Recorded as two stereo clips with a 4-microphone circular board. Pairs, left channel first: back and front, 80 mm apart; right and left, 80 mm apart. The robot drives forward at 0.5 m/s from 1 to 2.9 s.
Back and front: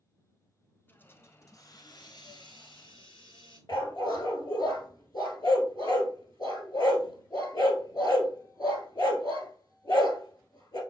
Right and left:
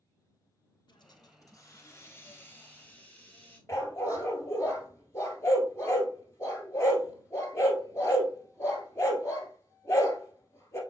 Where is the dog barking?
145° right, 1.3 m.